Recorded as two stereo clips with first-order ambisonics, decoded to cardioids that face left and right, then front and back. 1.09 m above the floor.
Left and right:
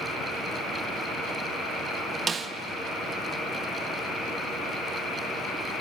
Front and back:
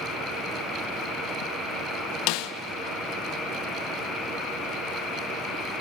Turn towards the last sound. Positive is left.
turn(degrees=-20)